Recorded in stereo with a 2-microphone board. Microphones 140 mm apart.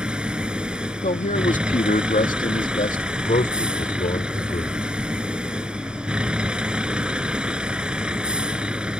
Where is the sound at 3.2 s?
70° left (ahead or behind).